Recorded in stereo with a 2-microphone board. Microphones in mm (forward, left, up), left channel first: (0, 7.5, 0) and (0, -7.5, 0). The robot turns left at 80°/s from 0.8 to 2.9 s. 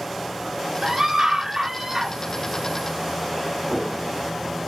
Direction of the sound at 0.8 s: 20° right (ahead or behind).